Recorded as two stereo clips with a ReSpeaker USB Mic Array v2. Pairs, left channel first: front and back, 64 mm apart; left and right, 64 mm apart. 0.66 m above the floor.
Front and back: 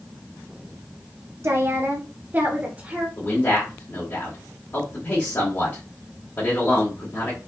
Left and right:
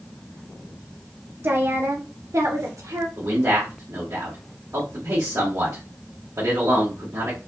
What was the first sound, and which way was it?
A woman speaking, 140° right.